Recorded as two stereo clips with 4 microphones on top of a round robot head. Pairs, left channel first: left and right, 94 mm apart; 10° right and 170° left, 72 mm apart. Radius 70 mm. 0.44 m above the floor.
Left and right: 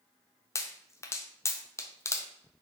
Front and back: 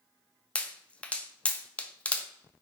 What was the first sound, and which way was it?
A pop, 55° left.